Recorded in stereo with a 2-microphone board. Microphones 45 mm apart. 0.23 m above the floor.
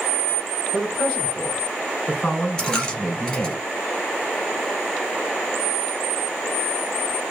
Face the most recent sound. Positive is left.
turn(degrees=15)  # may be behind; listen again after turning